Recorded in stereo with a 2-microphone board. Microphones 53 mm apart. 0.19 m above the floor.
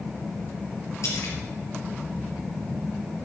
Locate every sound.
1.0 s a splash: 70° left (ahead or behind), 4 m